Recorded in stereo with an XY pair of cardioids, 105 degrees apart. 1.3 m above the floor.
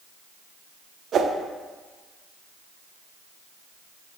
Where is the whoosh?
55° right, 0.7 m.